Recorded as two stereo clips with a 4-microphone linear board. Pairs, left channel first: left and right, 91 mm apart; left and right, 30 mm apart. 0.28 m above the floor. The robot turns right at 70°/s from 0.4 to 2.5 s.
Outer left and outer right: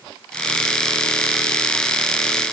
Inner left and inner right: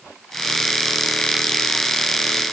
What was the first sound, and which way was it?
Only background noise.